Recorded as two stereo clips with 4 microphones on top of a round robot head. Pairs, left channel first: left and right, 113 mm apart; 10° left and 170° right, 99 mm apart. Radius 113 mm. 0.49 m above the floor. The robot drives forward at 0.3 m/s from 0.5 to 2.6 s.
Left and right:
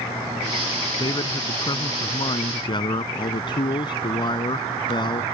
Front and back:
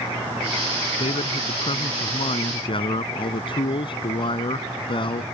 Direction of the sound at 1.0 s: 40° left.